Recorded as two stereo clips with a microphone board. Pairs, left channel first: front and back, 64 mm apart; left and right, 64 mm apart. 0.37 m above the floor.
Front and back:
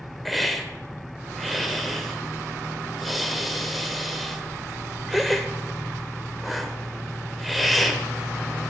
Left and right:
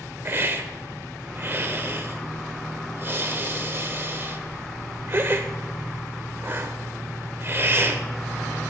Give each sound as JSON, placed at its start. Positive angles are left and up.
{"t": 0.2, "sound": "a hiss", "azimuth_deg": -90, "distance_m": 0.5}